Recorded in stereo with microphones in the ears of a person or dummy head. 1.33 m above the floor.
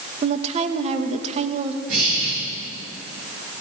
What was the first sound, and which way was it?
A woman speaking, 35° right (ahead or behind).